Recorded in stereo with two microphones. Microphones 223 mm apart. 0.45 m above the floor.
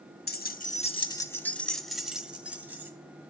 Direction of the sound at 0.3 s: 45° left (ahead or behind).